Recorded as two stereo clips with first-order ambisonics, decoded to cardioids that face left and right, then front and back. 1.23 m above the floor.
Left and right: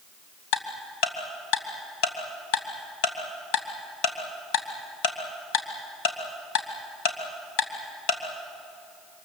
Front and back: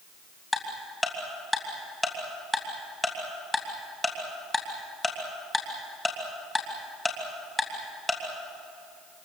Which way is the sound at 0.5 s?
85° left.